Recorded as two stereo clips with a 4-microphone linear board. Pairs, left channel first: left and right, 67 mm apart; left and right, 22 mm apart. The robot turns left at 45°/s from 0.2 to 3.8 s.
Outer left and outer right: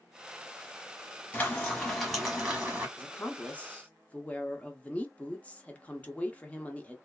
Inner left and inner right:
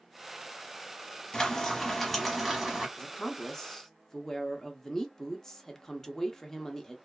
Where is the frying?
35° left, 1.0 m; by 2.9 s 35° right, 1.0 m.